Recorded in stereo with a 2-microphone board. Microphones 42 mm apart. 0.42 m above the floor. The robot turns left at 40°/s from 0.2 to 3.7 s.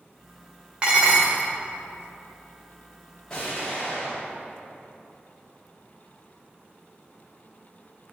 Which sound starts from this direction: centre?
An explosion, at 3.3 s.